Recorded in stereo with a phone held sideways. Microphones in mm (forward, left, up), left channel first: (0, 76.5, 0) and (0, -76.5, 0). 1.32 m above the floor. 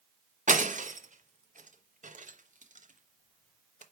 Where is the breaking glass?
55° right (ahead or behind), 1.0 m.